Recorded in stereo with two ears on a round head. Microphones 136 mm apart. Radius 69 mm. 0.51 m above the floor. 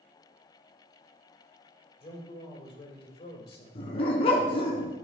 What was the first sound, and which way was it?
A man speaking, 35° left (ahead or behind).